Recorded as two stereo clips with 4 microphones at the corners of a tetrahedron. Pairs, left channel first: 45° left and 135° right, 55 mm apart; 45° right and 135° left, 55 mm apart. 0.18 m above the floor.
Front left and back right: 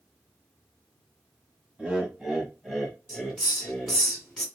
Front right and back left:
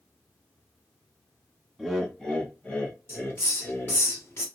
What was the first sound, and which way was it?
Laughter, 135° right.